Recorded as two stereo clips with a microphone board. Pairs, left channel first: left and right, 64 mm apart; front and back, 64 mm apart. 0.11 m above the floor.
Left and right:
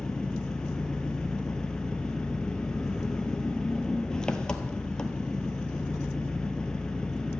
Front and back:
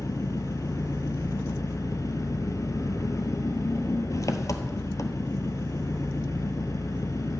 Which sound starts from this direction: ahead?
An engine running, at 0.0 s.